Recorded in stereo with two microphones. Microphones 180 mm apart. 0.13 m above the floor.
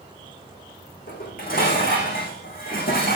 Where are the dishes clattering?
55° left (ahead or behind), 6 m.